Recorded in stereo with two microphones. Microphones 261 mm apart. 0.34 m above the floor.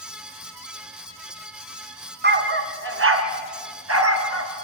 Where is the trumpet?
No trumpet in this recording.